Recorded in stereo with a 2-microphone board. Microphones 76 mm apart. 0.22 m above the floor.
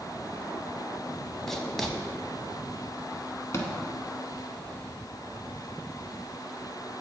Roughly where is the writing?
Centre.